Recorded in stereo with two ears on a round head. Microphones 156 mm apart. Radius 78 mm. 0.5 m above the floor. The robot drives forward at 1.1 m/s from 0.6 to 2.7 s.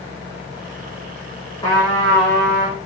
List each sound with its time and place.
1.6 s a trumpet: 25° left (ahead or behind), 6.5 m